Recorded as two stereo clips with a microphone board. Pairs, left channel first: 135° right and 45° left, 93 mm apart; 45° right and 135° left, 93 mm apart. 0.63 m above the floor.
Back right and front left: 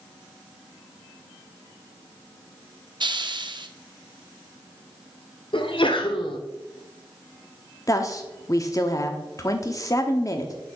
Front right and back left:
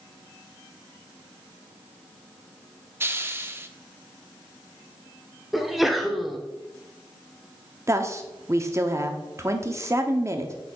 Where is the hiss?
75° left, 0.6 m.